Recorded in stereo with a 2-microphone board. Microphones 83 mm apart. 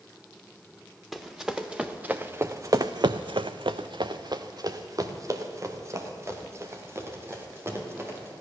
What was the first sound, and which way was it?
Running footsteps, 5° right (ahead or behind).